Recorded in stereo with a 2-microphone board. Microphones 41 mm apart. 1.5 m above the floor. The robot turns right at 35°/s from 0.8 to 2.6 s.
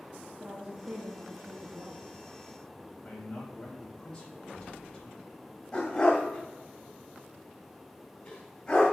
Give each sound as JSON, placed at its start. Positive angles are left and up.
{"t": 0.4, "sound": "a woman speaking", "azimuth_deg": -135, "distance_m": 0.9}
{"t": 3.0, "sound": "a man speaking", "side_deg": 15, "distance_m": 2.5}
{"t": 5.7, "sound": "a dog barking", "side_deg": 20, "distance_m": 1.9}